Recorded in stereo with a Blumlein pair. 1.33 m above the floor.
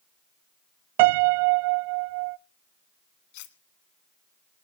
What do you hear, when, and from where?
1.0 s a piano: 50° right, 0.6 m
3.3 s cutlery clinking: 50° left, 1.6 m